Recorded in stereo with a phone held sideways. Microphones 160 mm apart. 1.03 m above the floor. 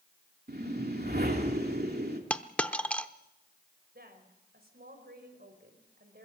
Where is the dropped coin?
10° left (ahead or behind), 0.8 m.